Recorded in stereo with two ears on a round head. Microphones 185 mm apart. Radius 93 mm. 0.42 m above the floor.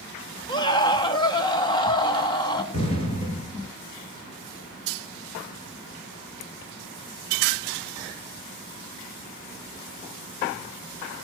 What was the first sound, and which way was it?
A scream, 20° left (ahead or behind).